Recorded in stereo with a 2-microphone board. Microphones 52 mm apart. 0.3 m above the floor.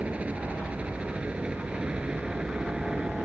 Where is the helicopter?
25° right (ahead or behind); by 3.3 s 15° right (ahead or behind).